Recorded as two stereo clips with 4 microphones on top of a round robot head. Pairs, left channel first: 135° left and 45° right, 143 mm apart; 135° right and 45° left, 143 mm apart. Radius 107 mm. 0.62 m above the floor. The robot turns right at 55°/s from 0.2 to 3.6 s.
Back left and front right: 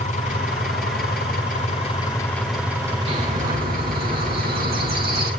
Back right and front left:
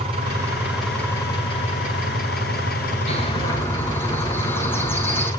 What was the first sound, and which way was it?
An engine running, 100° left.